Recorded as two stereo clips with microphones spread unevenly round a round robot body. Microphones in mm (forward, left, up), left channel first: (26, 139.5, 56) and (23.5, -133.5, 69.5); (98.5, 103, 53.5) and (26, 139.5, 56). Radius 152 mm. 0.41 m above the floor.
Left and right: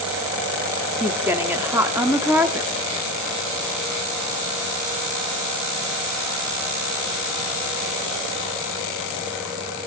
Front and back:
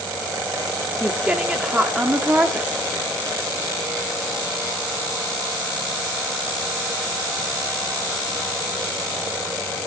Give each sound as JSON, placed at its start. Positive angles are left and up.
{"t": 1.0, "sound": "a woman speaking", "azimuth_deg": -165, "distance_m": 1.3}